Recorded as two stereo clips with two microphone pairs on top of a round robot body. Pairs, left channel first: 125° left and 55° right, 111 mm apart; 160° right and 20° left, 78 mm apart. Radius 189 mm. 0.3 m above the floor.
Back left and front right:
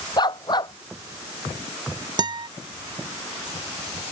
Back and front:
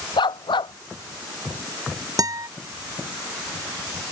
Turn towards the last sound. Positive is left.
turn(degrees=-5)